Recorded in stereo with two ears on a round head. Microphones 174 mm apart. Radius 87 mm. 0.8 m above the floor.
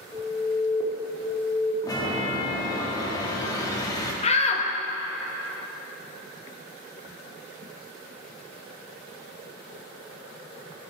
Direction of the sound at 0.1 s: 5° right (ahead or behind).